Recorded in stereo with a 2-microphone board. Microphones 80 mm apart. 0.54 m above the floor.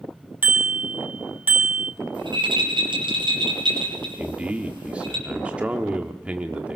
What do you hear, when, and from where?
0.4 s a bicycle bell: 20° right (ahead or behind), 3.5 m
2.1 s a rattle: 80° right, 6.5 m
4.2 s a man speaking: 15° right (ahead or behind), 1.4 m